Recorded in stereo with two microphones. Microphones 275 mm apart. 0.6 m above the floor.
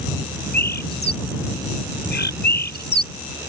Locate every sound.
0.5 s a bird: 40° left (ahead or behind)